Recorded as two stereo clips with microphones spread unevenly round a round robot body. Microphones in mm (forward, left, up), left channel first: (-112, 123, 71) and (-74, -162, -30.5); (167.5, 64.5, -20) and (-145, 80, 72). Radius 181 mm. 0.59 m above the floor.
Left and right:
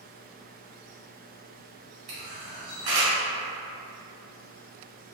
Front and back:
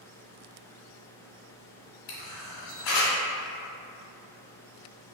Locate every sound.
2.1 s a camera shutter: 30° right, 1.2 m